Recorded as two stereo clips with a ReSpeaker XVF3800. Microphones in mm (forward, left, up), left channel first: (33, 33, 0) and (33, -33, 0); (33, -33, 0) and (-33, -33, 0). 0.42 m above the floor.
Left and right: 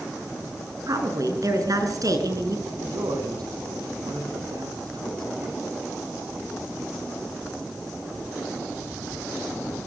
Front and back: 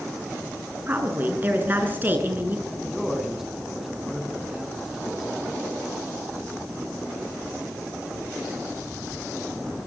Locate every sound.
0.9 s a woman speaking: 120° right, 5.5 m
2.7 s a man speaking: 95° right, 5 m